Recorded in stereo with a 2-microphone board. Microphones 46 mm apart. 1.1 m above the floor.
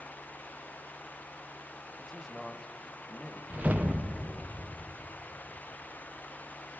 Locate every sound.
2.0 s a man speaking: 10° left (ahead or behind), 0.9 m
3.5 s a whoosh: 40° right (ahead or behind), 0.6 m